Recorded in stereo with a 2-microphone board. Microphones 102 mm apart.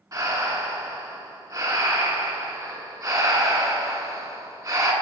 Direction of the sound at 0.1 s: 30° right (ahead or behind).